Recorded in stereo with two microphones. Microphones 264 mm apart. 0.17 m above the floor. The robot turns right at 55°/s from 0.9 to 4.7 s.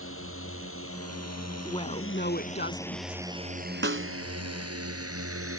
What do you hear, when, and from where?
0.0 s a drone: 55° left (ahead or behind); by 5.6 s 60° right (ahead or behind)
1.6 s a woman speaking: 25° left; by 3.2 s 110° left
3.8 s a snare drum: 45° right (ahead or behind); by 4.1 s 55° right (ahead or behind)